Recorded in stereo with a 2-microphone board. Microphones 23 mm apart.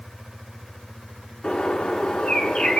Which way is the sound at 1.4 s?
75° left (ahead or behind).